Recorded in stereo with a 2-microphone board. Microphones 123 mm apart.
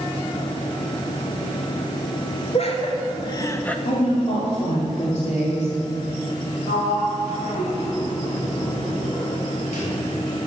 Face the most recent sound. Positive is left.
turn(degrees=85)